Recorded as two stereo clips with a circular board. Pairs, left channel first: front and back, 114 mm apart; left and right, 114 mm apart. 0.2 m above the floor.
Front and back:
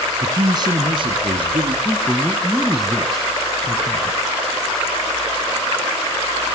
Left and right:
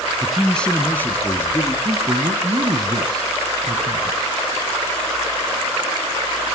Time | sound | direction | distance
0.2 | a man speaking | straight behind | 1.1 m
1.9 | a man speaking | 95° right | 1.3 m